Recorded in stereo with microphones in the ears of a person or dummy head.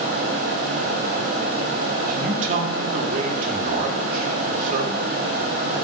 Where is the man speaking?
45° right (ahead or behind), 1.5 m.